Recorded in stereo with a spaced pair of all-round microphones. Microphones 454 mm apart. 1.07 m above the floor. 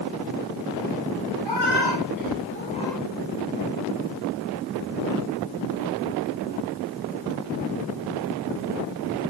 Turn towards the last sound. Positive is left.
turn(degrees=-5)  # may be behind; listen again after turning